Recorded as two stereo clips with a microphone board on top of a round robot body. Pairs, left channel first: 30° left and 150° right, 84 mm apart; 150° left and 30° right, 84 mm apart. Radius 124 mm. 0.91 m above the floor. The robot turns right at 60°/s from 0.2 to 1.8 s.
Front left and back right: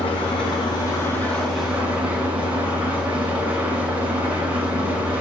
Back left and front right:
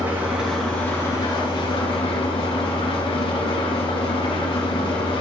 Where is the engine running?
40° left, 2.5 m; by 5.2 s 135° left, 2.5 m.